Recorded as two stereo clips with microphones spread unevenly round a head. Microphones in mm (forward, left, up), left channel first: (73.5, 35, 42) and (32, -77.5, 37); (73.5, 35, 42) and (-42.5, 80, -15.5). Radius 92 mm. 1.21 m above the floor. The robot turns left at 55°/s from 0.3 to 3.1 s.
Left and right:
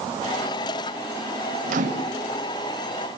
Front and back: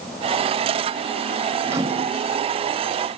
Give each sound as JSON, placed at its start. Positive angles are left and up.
{"t": 1.7, "sound": "a microwave", "azimuth_deg": -125, "distance_m": 2.0}